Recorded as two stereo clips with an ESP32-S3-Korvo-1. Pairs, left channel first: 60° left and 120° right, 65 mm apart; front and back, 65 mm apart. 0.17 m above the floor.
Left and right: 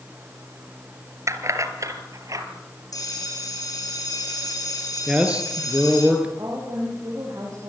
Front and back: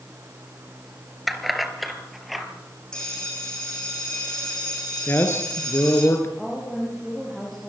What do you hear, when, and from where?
1.3 s keys jangling: 90° right, 2.0 m
2.9 s a bell: 80° left, 8 m
5.1 s a man speaking: 50° right, 3 m
6.4 s a woman speaking: 85° right, 7 m